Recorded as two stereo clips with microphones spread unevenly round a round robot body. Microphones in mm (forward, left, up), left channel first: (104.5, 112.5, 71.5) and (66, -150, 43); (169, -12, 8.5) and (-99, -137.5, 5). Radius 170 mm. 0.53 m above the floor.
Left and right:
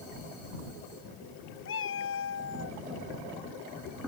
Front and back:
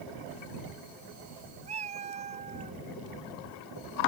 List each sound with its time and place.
1.6 s a cat meowing: 135° left